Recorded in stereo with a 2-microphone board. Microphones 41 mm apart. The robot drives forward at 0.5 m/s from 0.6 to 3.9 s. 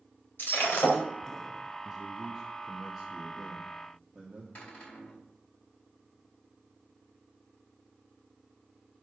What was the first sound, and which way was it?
Breaking glass, 85° left.